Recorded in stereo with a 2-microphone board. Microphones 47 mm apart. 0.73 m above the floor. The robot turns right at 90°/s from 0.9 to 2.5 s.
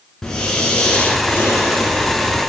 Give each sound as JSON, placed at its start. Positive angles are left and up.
{"t": 0.2, "sound": "breathing", "azimuth_deg": 10, "distance_m": 4.0}